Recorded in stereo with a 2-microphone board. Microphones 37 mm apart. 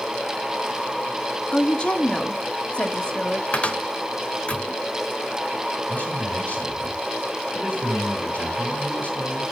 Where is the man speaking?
45° left (ahead or behind), 4 m.